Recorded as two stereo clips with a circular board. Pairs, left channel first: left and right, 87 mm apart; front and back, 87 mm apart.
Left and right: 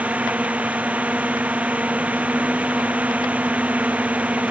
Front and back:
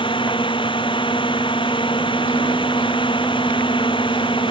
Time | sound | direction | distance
0.0 | a drone | 15° right | ?